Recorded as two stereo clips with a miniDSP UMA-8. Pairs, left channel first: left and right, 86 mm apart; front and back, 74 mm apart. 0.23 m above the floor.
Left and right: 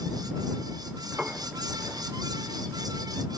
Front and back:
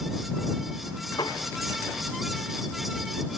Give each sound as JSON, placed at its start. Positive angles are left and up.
{"t": 1.2, "sound": "a piano", "azimuth_deg": -15}